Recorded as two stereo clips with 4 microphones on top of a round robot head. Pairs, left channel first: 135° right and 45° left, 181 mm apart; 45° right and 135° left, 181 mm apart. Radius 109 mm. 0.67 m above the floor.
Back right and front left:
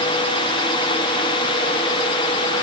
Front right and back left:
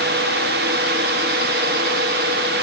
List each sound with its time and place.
Only background noise.